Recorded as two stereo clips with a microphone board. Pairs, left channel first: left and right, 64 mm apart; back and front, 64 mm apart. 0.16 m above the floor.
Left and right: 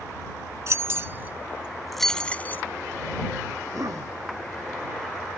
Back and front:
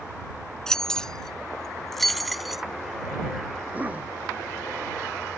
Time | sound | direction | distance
0.7 | keys jangling | 100° right | ?
3.6 | a cough | 65° right | ?